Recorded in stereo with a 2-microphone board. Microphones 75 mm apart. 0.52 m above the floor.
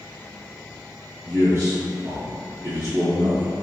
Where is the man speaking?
35° right (ahead or behind), 0.8 m.